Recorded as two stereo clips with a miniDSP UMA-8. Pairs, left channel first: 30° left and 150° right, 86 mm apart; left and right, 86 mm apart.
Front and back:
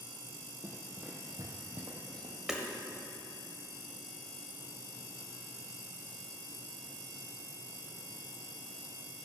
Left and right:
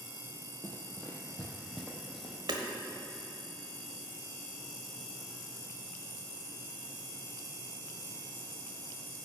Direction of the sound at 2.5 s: 65° right.